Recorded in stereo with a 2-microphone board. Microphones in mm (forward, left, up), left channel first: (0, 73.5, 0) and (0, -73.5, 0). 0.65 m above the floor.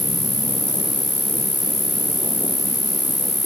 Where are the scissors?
No scissors in this recording.